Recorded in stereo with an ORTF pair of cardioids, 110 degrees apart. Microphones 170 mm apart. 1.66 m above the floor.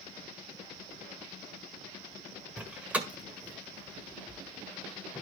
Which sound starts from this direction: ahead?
A door slam, at 2.6 s.